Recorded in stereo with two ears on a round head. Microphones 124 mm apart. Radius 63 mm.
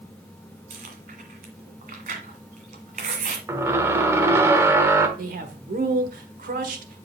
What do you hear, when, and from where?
0.7 s chewing: 60° right (ahead or behind), 1.6 m
3.5 s a squeak: 20° right (ahead or behind), 1.0 m
5.2 s a man speaking: 70° right (ahead or behind), 1.5 m